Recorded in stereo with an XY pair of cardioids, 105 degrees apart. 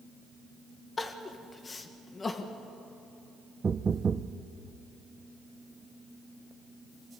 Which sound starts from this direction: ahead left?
Crying, at 1.0 s.